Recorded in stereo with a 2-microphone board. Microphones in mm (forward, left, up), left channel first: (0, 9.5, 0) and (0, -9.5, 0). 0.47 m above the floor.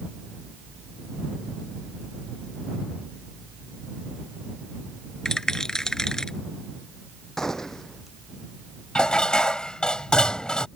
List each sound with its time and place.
5.2 s a rattle: 35° left (ahead or behind)
7.4 s a gunshot: 30° left (ahead or behind)
8.9 s dishes clattering: 60° left (ahead or behind)